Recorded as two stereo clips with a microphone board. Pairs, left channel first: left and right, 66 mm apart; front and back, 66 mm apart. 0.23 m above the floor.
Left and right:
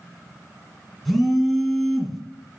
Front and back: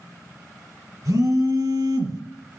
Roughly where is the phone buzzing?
Behind.